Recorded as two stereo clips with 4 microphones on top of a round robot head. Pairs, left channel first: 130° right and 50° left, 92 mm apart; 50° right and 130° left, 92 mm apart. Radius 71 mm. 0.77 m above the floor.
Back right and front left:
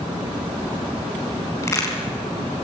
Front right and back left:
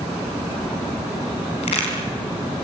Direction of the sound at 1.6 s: 70° right.